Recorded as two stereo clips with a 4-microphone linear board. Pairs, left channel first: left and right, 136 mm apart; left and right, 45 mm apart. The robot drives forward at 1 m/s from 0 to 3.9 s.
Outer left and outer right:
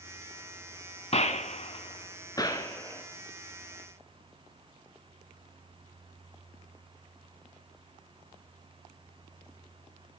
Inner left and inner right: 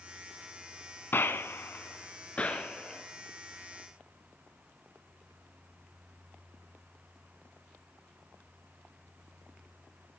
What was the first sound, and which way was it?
A gunshot, 50° left (ahead or behind).